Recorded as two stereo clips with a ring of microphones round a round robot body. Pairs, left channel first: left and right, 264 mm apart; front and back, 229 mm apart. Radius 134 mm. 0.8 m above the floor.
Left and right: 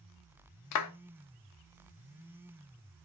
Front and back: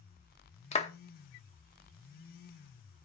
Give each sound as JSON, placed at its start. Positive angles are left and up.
{"t": 0.7, "sound": "a clap", "azimuth_deg": 65, "distance_m": 1.0}